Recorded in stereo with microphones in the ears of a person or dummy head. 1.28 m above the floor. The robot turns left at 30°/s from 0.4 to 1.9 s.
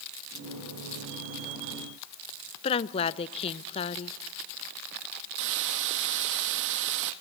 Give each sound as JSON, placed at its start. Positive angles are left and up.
{"t": 2.6, "sound": "a woman speaking", "side_deg": 25, "distance_m": 0.7}
{"t": 5.4, "sound": "a hiss", "side_deg": -60, "distance_m": 1.0}